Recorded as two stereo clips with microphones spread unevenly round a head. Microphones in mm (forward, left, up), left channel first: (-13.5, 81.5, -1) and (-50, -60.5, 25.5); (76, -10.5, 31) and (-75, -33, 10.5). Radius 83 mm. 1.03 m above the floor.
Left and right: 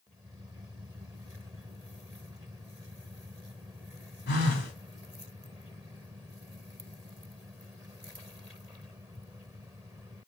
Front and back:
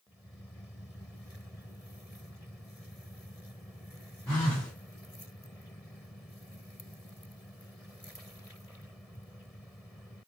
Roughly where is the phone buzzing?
Left.